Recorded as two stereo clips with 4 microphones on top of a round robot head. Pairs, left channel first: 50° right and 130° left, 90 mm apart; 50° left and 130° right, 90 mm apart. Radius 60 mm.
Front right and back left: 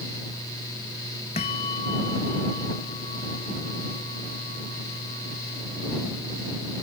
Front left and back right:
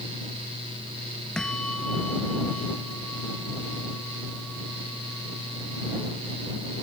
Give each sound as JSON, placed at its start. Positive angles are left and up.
{"t": 1.4, "sound": "a bell", "azimuth_deg": -35}